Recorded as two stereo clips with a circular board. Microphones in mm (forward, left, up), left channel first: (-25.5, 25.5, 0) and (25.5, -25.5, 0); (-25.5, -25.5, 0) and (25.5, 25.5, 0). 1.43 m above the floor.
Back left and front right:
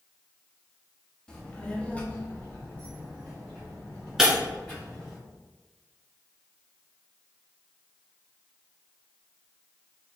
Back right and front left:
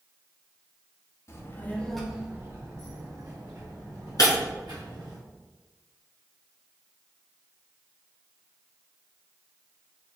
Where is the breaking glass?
130° right, 2.0 m.